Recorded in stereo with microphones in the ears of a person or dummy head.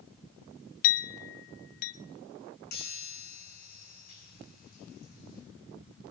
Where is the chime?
50° left (ahead or behind), 8.5 m.